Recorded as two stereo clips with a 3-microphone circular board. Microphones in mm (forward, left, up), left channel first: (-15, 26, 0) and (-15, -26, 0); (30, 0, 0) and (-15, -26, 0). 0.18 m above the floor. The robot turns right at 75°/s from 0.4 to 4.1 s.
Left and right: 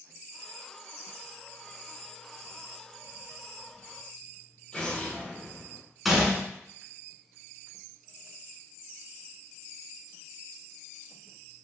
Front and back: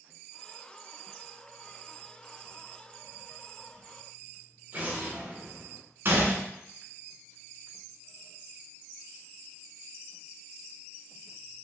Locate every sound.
4.7 s an explosion: 155° left, 1.0 m
6.0 s a gunshot: straight behind, 0.8 m